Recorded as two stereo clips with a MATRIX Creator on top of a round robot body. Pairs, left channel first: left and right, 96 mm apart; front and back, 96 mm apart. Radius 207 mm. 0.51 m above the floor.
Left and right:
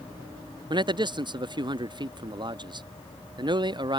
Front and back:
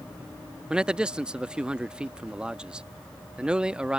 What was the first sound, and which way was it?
A man speaking, 100° right.